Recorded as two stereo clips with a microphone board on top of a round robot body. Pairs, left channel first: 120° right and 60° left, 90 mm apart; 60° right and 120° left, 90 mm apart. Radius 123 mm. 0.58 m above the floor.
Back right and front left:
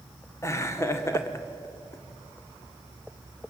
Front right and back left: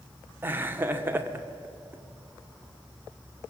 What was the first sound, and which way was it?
Laughter, 175° right.